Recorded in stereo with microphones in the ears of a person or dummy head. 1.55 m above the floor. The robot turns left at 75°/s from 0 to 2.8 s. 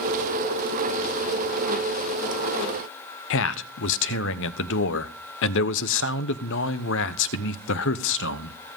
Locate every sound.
3.3 s a man speaking: 75° left (ahead or behind), 1.0 m